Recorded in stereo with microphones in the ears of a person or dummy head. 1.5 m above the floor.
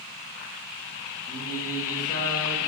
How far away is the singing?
About 2.5 m.